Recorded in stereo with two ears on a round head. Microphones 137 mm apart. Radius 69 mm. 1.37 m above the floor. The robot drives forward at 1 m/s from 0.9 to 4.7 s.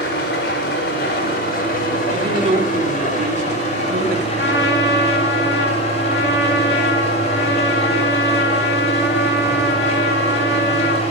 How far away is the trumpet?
About 3 m.